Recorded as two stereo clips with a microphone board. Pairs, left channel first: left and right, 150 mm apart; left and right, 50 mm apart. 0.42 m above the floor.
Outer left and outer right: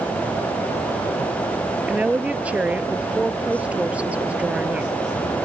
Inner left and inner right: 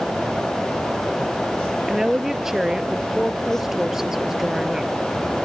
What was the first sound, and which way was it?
A woman speaking, 10° right (ahead or behind).